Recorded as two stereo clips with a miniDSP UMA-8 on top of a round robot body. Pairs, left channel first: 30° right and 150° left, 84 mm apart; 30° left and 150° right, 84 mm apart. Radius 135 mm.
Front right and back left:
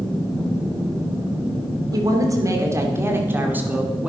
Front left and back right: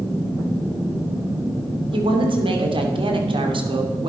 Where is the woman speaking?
165° right, 3 m; by 4.1 s 135° right, 2.5 m.